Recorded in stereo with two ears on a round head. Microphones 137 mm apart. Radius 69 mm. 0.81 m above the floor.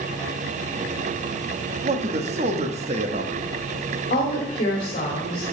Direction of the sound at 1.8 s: 45° right (ahead or behind).